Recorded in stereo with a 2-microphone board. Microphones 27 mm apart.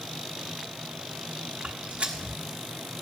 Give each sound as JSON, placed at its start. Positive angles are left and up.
{"t": 1.6, "sound": "footsteps", "side_deg": -55, "distance_m": 1.3}